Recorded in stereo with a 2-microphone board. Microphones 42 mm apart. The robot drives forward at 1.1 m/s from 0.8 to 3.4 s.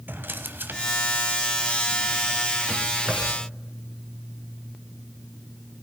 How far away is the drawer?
About 1.0 m.